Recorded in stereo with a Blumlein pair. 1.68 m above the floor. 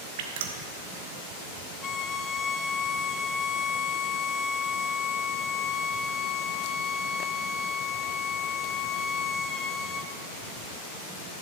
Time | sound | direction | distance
0.2 | dripping | 55° right | 1.4 m
1.8 | a violin | 25° left | 0.5 m